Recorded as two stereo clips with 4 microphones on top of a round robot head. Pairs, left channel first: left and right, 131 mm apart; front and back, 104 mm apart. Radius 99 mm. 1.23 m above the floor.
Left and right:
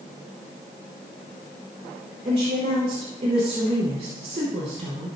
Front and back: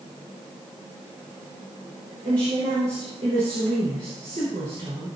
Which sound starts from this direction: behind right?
A woman speaking, at 2.2 s.